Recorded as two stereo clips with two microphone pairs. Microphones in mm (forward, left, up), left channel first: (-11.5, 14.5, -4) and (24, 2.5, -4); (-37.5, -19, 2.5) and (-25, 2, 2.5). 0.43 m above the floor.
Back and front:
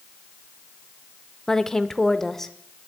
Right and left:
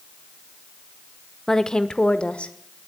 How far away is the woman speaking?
About 0.7 m.